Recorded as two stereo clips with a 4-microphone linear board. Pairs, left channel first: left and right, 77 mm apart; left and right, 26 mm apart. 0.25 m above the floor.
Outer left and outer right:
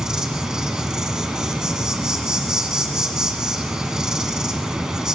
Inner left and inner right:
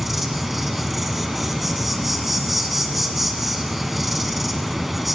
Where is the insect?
10° right (ahead or behind), 1.4 m.